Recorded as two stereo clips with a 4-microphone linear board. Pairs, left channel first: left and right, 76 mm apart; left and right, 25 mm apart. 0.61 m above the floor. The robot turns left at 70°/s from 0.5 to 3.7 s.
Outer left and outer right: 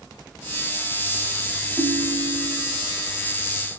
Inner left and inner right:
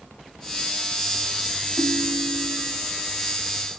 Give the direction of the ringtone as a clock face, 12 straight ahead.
3 o'clock.